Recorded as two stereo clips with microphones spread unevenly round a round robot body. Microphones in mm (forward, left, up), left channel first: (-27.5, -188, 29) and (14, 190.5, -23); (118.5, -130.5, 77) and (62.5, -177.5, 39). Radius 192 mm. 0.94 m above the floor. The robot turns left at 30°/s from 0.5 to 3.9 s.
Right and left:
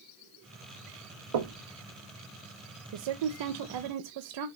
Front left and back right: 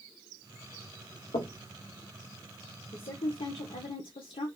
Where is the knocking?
65° left, 0.9 m; by 1.6 s 55° left, 0.9 m.